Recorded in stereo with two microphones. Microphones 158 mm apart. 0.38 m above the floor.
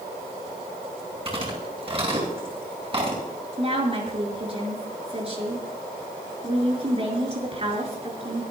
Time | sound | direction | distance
1.2 | chewing | 35° right (ahead or behind) | 8 m
3.6 | a woman speaking | 40° right (ahead or behind) | 5.5 m